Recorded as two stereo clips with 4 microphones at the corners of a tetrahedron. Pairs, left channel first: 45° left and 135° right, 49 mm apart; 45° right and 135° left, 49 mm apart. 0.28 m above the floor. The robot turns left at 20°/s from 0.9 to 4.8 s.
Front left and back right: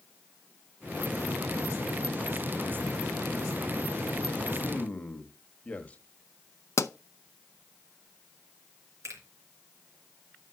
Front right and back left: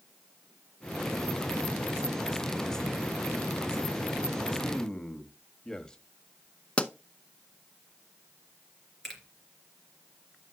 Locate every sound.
4.6 s a man speaking: 20° left, 1.2 m; by 6.0 s 15° left, 1.2 m
6.8 s a pop: 20° left, 0.5 m
9.0 s a finger snap: 130° right, 3 m